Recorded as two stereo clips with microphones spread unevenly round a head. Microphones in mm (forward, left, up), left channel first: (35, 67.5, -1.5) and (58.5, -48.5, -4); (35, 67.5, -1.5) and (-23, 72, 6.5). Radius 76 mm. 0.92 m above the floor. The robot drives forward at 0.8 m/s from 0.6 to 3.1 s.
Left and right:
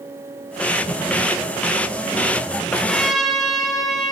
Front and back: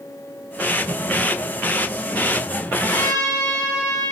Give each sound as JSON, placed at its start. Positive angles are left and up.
{"t": 0.9, "sound": "a whoosh", "azimuth_deg": 65, "distance_m": 6.5}
{"t": 2.7, "sound": "a trumpet", "azimuth_deg": 15, "distance_m": 8.5}